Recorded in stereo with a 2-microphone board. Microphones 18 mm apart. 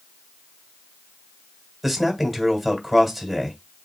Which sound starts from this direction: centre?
A man speaking, at 1.8 s.